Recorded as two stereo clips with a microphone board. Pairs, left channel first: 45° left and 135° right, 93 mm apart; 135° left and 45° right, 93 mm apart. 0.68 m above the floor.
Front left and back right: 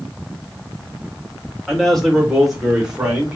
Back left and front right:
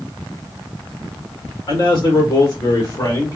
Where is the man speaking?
130° left, 2.0 m; by 3.4 s 155° left, 1.4 m.